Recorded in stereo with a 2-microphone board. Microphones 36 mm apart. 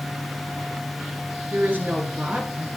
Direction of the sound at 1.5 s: 60° right (ahead or behind).